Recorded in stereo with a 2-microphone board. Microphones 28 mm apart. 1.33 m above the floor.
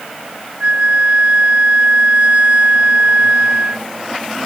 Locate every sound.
0.6 s a flute: 50° right (ahead or behind)